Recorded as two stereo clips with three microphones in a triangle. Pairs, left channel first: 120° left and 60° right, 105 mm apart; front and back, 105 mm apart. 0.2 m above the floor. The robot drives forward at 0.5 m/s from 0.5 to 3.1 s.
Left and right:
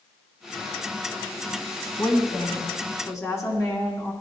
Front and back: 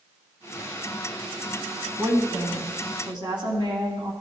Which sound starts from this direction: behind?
A woman speaking, at 2.0 s.